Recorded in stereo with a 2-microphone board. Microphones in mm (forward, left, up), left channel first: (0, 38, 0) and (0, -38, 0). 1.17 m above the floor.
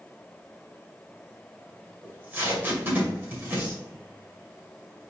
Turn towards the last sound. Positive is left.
turn(degrees=-25)  # may be behind; listen again after turning